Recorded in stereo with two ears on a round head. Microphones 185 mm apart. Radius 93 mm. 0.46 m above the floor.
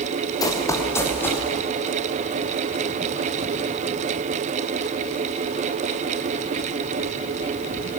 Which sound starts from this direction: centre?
Running footsteps, at 0.4 s.